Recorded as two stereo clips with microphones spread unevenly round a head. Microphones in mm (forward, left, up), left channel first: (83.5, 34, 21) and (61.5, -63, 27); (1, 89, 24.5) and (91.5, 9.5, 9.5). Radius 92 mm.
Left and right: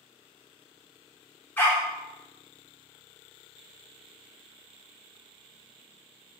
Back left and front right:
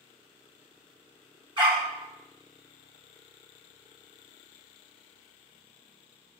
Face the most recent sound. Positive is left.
turn(degrees=5)